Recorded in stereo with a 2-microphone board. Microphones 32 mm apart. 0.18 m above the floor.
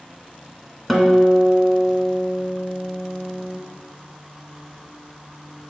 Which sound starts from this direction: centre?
A guitar, at 0.9 s.